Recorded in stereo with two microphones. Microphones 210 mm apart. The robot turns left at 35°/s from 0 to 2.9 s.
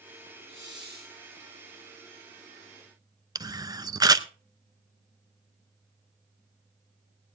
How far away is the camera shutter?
About 0.6 m.